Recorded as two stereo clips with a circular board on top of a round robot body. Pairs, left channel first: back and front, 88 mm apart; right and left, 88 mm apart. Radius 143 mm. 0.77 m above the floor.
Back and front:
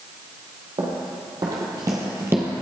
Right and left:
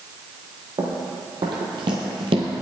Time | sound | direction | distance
0.8 | running footsteps | 45° left | 1.7 m